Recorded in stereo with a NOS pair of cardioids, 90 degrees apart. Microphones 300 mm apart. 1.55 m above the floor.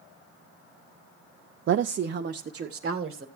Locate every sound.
1.7 s a woman speaking: 45° right, 0.5 m; by 3.2 s 35° right, 1.5 m